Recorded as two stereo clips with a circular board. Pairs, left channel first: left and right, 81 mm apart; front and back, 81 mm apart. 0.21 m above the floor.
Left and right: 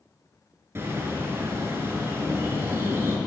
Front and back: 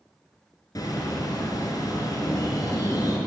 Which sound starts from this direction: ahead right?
A bird, at 0.8 s.